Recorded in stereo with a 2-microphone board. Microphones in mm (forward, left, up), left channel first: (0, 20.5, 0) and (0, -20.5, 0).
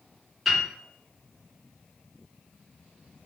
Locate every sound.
0.5 s a piano: 5° right (ahead or behind), 1.1 m